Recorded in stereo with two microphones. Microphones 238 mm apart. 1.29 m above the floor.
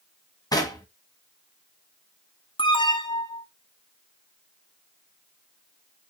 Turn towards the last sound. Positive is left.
turn(degrees=20)  # may be behind; listen again after turning